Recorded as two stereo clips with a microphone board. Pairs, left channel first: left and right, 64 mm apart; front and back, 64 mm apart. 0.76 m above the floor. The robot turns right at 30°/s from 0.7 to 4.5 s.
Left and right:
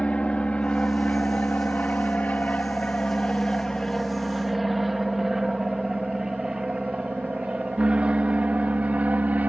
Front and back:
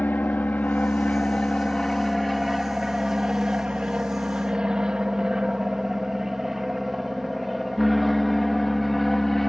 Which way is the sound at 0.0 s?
30° left.